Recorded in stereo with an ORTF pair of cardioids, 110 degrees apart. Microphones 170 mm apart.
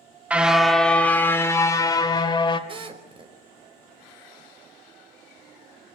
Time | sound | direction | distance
0.3 | a car horn | 10° right | 2 m
2.7 | a drill | 30° right | 4.5 m